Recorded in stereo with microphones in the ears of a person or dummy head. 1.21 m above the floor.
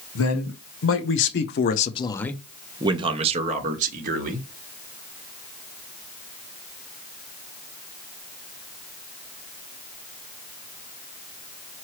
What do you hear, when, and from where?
0.1 s a man speaking: 70° left (ahead or behind), 1.3 m; by 4.5 s 50° right (ahead or behind), 1.4 m